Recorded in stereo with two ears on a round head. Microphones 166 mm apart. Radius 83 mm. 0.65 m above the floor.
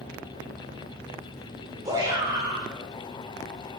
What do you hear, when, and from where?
1.9 s a shout: 20° right (ahead or behind), 2.5 m